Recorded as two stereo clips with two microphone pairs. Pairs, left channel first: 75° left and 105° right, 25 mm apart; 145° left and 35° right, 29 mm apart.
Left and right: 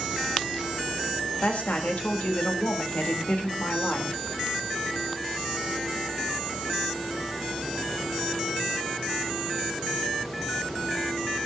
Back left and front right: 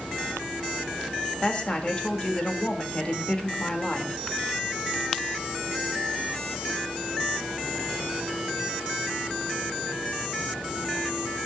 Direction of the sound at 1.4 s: 95° left.